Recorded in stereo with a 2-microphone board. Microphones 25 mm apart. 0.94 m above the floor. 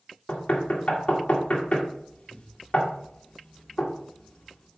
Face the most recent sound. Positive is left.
turn(degrees=55)  # may be behind; listen again after turning